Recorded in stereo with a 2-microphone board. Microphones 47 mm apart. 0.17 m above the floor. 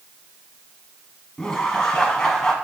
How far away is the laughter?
About 1.2 m.